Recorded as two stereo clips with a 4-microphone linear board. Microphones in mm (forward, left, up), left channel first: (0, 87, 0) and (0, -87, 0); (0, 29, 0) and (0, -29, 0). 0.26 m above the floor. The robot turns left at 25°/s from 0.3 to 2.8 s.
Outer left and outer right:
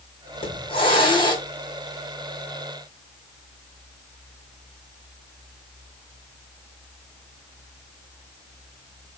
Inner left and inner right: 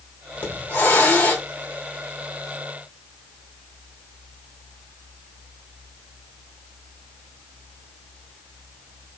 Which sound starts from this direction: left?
A hiss, at 0.3 s.